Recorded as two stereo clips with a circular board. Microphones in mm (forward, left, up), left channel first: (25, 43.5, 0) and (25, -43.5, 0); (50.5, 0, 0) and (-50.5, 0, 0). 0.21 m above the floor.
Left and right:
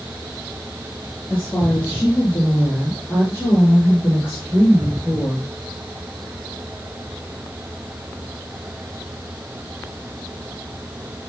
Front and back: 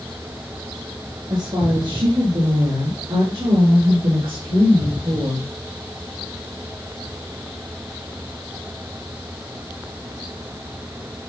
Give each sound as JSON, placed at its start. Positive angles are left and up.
{"t": 1.3, "sound": "a woman speaking", "azimuth_deg": 145, "distance_m": 4.0}